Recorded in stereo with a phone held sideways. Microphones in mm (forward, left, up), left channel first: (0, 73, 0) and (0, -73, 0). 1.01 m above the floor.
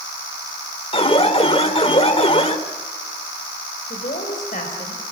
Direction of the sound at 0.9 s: 40° left (ahead or behind).